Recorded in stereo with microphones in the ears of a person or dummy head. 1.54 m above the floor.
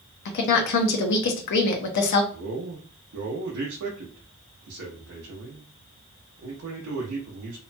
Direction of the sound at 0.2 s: 60° left (ahead or behind).